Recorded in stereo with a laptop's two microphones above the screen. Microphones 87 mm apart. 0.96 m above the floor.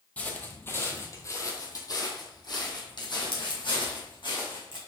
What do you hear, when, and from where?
0.2 s footsteps: 15° left (ahead or behind), 1.6 m; by 4.8 s 70° left (ahead or behind), 3 m